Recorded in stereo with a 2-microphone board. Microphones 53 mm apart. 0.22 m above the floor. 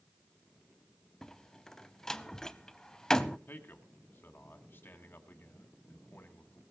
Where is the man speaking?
40° left (ahead or behind), 2.0 m.